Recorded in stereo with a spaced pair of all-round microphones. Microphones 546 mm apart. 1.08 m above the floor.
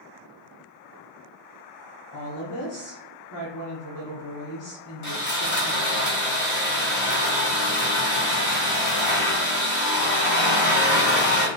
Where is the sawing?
35° left (ahead or behind), 0.8 m.